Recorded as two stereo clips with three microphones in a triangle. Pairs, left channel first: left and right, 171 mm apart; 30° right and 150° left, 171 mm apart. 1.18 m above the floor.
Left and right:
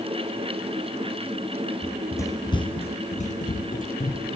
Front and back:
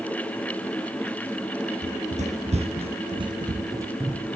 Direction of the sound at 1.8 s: 170° left.